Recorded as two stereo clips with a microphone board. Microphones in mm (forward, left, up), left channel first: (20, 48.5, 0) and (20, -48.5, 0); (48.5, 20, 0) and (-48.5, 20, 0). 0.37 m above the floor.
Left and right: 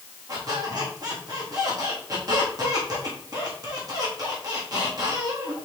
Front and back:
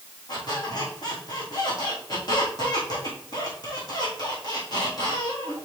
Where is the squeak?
45° right, 3 m.